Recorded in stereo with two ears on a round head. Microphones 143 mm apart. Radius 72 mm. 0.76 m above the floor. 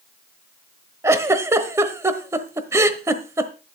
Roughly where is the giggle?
Centre.